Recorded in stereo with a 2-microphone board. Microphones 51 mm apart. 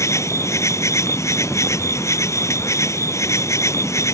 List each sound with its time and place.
0.0 s an insect: 60° left (ahead or behind)